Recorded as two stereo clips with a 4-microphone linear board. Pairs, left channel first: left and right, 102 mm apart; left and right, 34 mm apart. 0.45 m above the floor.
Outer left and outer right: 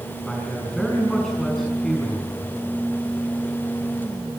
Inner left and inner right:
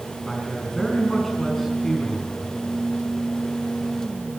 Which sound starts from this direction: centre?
A man speaking, at 0.3 s.